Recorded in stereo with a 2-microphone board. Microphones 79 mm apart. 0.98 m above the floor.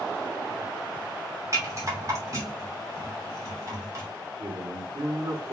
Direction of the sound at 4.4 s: 50° right (ahead or behind).